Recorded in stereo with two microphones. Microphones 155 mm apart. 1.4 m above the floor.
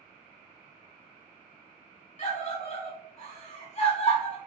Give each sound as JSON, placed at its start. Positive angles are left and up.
{"t": 2.2, "sound": "a scream", "side_deg": 45, "distance_m": 1.9}